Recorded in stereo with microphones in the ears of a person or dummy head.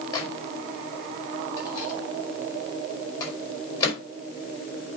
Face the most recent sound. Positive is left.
turn(degrees=20)  # may be behind; listen again after turning